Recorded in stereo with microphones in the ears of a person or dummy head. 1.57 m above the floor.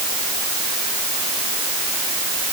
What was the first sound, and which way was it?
Only background noise.